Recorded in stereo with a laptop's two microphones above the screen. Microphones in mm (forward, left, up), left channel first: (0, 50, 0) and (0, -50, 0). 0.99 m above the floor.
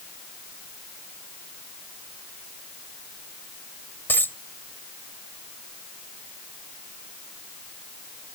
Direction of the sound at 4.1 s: 20° left (ahead or behind).